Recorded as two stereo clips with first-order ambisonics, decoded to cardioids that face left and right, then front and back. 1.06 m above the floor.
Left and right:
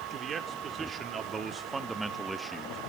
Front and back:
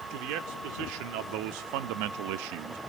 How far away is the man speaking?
About 2.5 m.